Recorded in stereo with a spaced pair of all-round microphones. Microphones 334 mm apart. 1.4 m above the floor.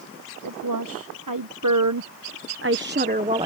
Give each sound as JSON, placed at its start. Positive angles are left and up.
{"t": 0.4, "sound": "a woman speaking", "side_deg": -75}